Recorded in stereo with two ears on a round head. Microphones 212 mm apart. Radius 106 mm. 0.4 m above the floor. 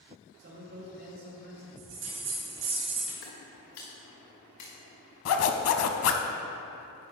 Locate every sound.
0.4 s a man speaking: 45° right (ahead or behind), 2 m
1.8 s a bell: 55° right (ahead or behind), 2.5 m
3.2 s footsteps: 60° left (ahead or behind), 3 m; by 4.7 s 80° left, 3 m
5.2 s a zipper: 65° left (ahead or behind), 0.6 m